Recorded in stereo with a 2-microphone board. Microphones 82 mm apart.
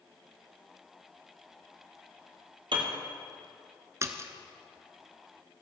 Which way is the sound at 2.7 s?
70° right (ahead or behind).